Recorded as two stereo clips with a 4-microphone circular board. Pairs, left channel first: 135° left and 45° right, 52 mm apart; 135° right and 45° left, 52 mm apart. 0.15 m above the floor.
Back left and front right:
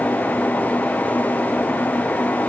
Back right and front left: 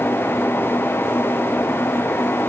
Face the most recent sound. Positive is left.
No sound to turn to.